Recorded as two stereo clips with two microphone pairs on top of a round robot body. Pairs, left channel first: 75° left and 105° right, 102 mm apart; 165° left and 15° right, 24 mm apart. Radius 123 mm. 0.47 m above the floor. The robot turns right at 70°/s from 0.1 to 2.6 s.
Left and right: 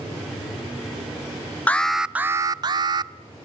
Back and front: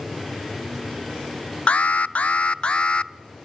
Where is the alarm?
140° left, 0.7 m; by 3.1 s 155° right, 0.7 m.